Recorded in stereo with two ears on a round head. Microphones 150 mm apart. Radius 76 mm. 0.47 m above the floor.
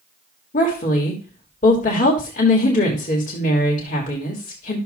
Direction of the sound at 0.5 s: 50° left (ahead or behind).